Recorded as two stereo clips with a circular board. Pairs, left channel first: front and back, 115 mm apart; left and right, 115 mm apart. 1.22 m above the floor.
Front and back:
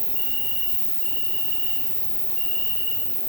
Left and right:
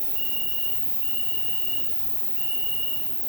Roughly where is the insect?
Behind.